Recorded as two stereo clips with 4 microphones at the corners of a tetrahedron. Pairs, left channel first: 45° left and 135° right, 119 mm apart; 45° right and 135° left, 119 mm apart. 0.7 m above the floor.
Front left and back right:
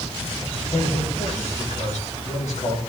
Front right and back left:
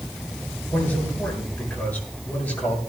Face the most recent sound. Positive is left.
turn(degrees=30)